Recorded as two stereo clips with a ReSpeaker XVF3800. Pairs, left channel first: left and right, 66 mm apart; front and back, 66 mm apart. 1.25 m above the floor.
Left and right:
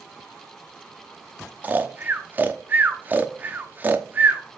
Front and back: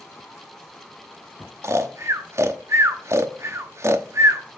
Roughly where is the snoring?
Behind right.